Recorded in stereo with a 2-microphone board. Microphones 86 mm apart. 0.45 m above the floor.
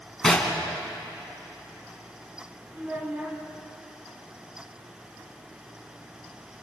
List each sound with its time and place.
0.2 s knocking: 5° left (ahead or behind), 2.5 m
2.7 s a child speaking: 20° right (ahead or behind), 2.5 m